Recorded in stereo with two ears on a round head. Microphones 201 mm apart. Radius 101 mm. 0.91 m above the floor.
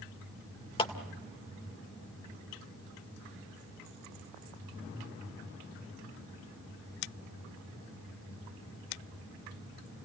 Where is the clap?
25° left (ahead or behind), 2.0 m.